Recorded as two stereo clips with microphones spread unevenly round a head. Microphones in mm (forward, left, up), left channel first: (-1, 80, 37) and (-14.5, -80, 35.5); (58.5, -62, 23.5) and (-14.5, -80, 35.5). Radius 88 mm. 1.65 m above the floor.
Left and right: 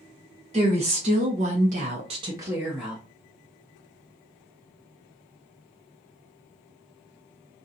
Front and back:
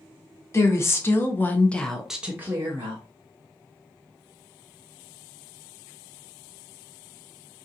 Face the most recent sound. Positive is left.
turn(degrees=175)